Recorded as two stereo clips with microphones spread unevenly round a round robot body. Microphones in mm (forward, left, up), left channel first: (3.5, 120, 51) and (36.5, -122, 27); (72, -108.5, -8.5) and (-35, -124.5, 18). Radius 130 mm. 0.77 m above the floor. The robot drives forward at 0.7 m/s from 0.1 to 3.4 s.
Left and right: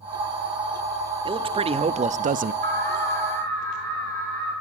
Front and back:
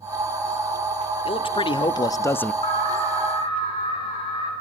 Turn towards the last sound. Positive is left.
turn(degrees=-30)